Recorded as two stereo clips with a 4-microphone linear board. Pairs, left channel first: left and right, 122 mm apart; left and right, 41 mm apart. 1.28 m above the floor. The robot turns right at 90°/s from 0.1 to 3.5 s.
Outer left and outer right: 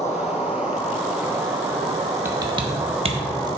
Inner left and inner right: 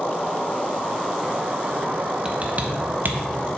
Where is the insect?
90° left, 1.8 m; by 3.6 s 35° left, 1.8 m.